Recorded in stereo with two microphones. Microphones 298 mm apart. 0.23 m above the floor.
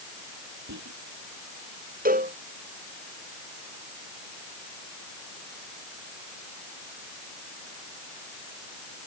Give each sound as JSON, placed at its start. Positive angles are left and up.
{"t": 0.7, "sound": "whispering", "side_deg": -70}
{"t": 2.0, "sound": "a cowbell", "side_deg": -30}